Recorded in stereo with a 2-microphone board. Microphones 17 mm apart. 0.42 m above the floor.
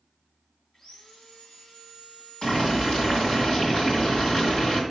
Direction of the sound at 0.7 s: 50° left (ahead or behind).